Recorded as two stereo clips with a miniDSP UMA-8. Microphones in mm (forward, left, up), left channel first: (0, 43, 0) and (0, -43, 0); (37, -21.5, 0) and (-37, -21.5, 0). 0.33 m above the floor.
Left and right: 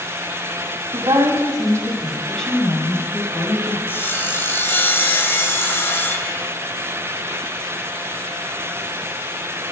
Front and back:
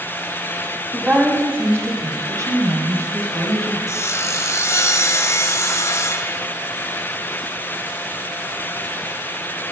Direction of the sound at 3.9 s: 35° left.